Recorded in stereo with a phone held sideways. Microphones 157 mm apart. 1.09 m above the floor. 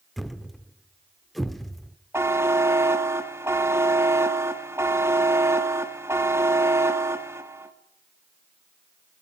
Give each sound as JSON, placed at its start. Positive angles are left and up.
{"t": 0.2, "sound": "a thud", "side_deg": 0, "distance_m": 1.0}
{"t": 2.1, "sound": "a buzzer", "side_deg": -15, "distance_m": 1.7}